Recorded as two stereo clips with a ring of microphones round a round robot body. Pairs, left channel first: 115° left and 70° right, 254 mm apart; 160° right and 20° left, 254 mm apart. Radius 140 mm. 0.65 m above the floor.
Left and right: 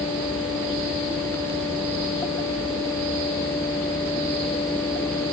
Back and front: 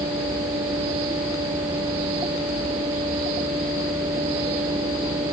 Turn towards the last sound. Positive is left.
No sound to turn to.